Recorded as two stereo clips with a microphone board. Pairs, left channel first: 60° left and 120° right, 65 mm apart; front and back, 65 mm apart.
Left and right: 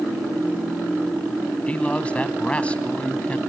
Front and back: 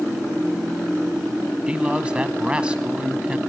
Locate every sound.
1.7 s a man speaking: 115° left, 1.2 m